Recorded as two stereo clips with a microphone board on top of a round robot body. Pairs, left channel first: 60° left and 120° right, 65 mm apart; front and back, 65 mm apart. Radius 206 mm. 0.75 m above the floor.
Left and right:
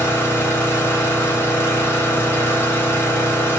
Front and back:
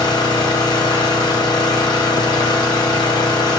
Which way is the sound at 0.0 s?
5° left.